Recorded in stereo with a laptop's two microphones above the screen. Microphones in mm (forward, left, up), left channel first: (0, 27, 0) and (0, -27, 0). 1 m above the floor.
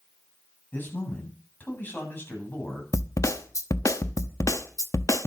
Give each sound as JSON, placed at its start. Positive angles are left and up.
{"t": 0.7, "sound": "a man speaking", "side_deg": 35, "distance_m": 8.5}
{"t": 2.9, "sound": "a snare drum", "side_deg": 75, "distance_m": 0.9}